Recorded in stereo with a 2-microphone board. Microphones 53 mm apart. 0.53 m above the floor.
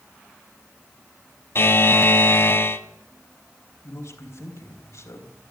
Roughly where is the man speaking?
Left.